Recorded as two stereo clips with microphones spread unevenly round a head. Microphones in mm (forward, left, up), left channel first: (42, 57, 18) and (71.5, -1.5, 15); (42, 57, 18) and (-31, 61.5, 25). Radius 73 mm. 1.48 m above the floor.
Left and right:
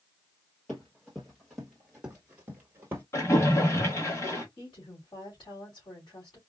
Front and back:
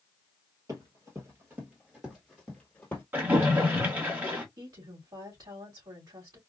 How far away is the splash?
About 1.6 m.